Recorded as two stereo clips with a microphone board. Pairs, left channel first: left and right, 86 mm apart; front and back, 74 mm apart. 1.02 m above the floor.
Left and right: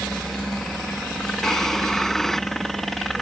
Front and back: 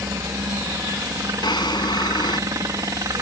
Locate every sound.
0.0 s a helicopter: 175° left
1.4 s a drawer: 5° left